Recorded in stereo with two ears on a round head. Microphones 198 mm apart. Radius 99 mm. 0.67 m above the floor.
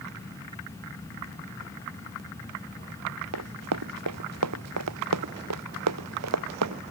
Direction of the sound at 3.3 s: 85° right.